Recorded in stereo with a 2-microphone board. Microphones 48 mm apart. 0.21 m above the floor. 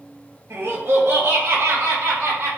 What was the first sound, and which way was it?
Laughter, 65° right (ahead or behind).